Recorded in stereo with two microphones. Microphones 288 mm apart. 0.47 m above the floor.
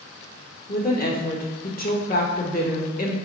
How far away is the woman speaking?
About 1.0 m.